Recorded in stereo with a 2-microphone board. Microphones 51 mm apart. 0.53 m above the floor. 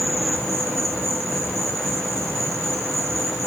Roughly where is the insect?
Centre.